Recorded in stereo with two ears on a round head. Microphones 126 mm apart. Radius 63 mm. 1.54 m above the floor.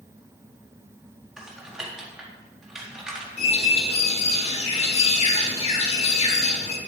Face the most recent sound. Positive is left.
turn(degrees=50)  # may be behind; listen again after turning